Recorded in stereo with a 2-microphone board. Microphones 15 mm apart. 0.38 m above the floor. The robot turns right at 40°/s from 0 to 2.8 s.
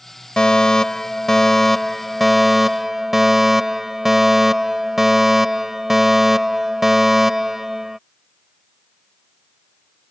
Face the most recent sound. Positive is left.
turn(degrees=-150)